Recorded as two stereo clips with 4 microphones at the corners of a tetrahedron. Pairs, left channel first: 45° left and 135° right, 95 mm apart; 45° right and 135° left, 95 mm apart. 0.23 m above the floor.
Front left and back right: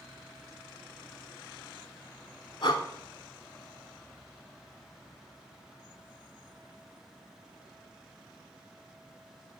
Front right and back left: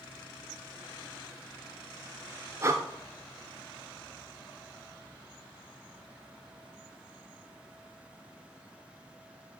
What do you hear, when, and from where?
2.6 s breathing: 75° left, 0.5 m